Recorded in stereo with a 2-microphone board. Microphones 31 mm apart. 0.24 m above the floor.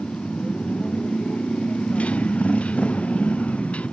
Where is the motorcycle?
50° left (ahead or behind).